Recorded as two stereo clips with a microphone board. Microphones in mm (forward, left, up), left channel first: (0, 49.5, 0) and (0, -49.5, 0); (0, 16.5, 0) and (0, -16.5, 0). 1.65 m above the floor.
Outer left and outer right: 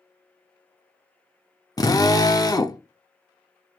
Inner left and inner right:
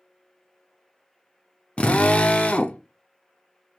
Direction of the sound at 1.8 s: 35° left (ahead or behind).